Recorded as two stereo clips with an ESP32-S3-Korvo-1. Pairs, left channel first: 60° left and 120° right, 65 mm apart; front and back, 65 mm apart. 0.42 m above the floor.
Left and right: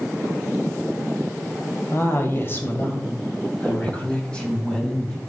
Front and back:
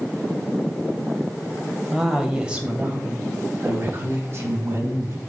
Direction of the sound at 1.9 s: 95° left.